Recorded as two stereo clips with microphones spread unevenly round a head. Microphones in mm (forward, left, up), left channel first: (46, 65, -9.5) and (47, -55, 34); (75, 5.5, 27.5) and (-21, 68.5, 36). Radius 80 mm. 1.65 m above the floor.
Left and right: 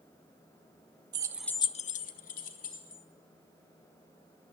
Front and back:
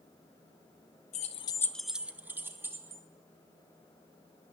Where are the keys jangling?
75° right, 0.8 m; by 3.0 s 80° left, 2 m.